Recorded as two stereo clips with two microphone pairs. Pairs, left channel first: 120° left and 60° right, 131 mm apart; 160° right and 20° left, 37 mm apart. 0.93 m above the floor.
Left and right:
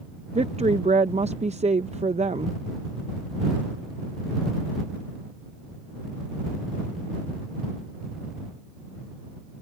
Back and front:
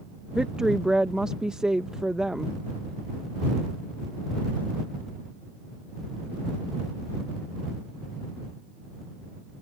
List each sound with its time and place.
0.3 s a woman speaking: 50° right